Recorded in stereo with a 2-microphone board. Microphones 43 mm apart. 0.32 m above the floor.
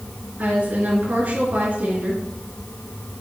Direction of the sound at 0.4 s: 45° right (ahead or behind).